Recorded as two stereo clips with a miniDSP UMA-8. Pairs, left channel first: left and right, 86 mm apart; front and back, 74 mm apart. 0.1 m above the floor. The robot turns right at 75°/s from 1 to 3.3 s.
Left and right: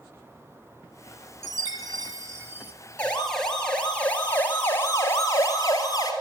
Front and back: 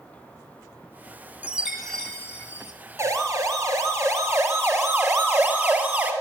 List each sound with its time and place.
1.4 s a chime: 125° right, 1.4 m; by 2.7 s 30° right, 1.4 m
3.0 s a siren: 155° left, 2.5 m; by 6.1 s 120° left, 2.5 m